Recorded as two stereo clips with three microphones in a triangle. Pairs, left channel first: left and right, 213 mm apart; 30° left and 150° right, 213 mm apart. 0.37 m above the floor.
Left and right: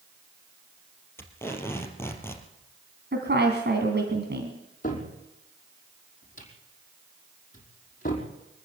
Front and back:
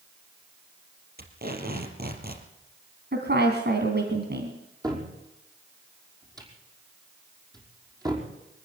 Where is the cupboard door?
140° left, 5 m.